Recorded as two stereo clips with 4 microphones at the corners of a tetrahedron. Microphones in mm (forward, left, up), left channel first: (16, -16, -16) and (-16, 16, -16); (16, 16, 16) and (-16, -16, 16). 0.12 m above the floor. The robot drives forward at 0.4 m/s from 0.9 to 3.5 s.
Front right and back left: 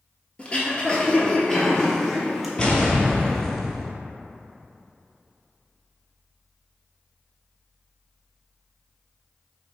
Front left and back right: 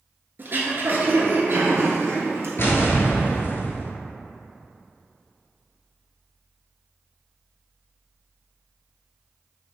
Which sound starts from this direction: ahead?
An explosion, at 2.6 s.